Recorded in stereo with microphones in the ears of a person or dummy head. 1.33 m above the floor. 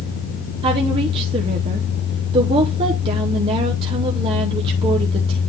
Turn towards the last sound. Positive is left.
turn(degrees=-30)  # may be behind; listen again after turning